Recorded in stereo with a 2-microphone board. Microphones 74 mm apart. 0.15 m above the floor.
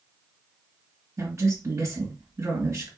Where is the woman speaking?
40° right (ahead or behind), 1.7 m.